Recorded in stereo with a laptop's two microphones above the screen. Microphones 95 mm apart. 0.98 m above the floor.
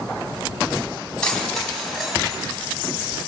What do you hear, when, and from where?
1.2 s keys jangling: 10° left (ahead or behind), 5 m; by 2.5 s 10° right (ahead or behind), 4.5 m